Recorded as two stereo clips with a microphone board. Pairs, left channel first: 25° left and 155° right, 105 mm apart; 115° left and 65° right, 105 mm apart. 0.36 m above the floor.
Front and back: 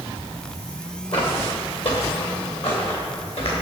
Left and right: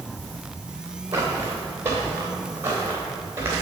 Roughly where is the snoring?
No snoring in this recording.